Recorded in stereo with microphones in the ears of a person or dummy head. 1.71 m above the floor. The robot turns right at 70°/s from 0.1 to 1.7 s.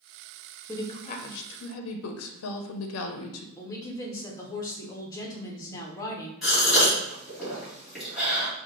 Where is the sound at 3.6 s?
20° left (ahead or behind), 0.9 m.